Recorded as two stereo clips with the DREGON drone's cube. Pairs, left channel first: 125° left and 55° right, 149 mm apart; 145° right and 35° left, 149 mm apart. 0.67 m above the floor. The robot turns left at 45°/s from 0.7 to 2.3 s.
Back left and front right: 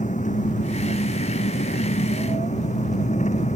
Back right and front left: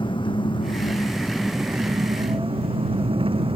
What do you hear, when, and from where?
0.0 s an engine running: 160° left; by 3.6 s 85° left